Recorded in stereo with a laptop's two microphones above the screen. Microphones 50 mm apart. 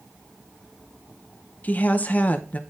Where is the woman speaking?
35° left (ahead or behind), 0.7 m.